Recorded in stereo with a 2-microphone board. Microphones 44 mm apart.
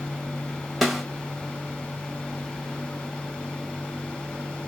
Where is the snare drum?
5° right (ahead or behind), 0.9 m.